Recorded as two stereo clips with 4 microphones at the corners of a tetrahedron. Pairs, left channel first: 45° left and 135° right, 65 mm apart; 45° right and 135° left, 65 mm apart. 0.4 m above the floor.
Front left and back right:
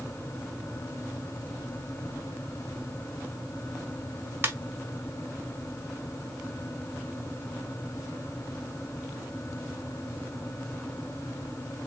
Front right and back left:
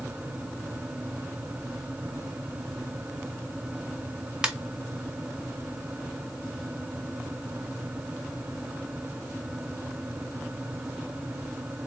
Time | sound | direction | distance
4.4 | a ringtone | 155° right | 0.8 m